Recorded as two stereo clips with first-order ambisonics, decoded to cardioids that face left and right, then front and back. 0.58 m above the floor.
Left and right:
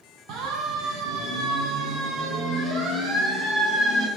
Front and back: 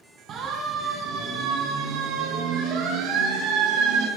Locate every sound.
0.3 s a siren: 125° right, 3.5 m; by 4.1 s 160° right, 5.5 m